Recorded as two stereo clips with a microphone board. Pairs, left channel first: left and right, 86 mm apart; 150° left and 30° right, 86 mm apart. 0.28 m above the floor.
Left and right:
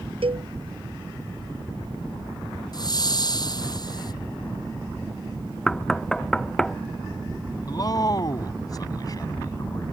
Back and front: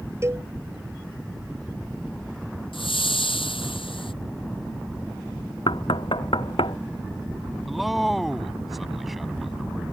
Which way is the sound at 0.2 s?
90° right.